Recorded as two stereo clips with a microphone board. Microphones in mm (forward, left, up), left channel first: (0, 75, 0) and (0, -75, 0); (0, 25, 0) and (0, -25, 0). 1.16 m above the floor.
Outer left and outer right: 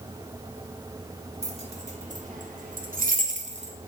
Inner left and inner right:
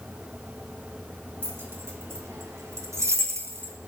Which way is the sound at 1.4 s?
45° right (ahead or behind).